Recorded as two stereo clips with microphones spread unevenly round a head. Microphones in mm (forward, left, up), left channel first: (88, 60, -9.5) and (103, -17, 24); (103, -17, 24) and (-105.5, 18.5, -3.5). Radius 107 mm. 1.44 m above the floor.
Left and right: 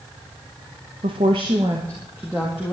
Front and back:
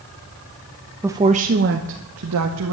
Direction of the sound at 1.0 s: 105° right.